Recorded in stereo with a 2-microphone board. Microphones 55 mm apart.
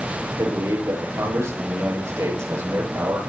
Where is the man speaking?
70° right (ahead or behind), 9 m.